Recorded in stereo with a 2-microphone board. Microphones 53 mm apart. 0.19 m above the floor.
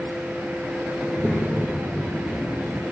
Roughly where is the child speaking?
Centre.